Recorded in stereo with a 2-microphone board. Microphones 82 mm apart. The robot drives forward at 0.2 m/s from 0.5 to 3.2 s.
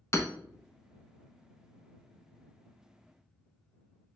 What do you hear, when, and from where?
0.1 s hammering: 35° left (ahead or behind), 0.6 m